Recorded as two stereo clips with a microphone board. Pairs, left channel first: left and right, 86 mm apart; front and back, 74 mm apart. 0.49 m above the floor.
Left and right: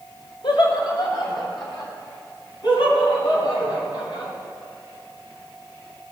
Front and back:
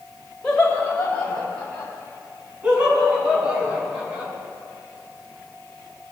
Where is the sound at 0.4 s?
80° left, 1.9 m; by 1.9 s 65° left, 3.5 m.